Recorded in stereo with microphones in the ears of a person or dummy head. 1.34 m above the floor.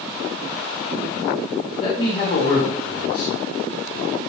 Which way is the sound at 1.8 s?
30° left (ahead or behind).